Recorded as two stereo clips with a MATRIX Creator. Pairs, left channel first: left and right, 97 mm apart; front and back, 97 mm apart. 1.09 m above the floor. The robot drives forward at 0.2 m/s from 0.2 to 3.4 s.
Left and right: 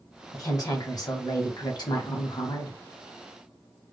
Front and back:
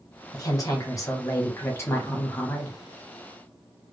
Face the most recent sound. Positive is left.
turn(degrees=80)